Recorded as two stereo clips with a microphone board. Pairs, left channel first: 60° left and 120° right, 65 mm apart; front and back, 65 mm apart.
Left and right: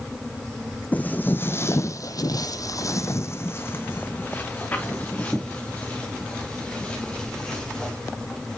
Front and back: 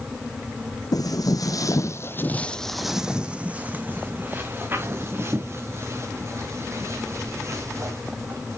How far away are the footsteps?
About 0.8 m.